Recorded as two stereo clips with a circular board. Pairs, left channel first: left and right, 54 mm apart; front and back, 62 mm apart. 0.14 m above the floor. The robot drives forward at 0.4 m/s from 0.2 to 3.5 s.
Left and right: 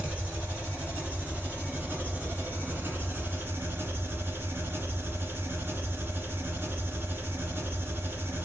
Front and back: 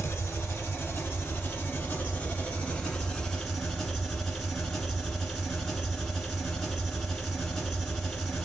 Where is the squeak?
No squeak in this recording.